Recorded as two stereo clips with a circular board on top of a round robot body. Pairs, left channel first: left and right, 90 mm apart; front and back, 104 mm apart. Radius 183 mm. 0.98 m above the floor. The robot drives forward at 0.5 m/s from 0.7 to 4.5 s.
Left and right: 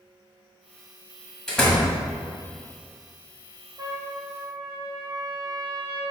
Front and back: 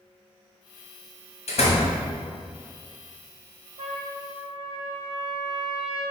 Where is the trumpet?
145° right, 1.1 m; by 6.0 s 155° right, 1.4 m.